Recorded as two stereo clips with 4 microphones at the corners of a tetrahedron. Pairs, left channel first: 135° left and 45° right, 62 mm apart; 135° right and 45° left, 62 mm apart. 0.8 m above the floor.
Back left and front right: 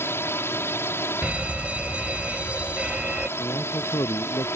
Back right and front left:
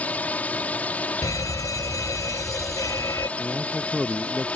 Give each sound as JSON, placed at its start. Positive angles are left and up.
{"t": 0.0, "sound": "a drone", "azimuth_deg": 165}
{"t": 1.2, "sound": "a fire alarm", "azimuth_deg": -115}
{"t": 3.4, "sound": "a man speaking", "azimuth_deg": 130}